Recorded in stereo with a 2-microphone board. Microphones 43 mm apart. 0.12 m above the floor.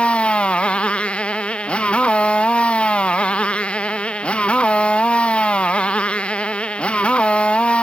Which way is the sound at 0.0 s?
30° left (ahead or behind).